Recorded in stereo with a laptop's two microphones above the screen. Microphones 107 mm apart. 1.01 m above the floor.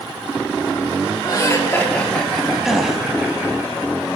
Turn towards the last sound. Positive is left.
turn(degrees=0)  # may be behind; listen again after turning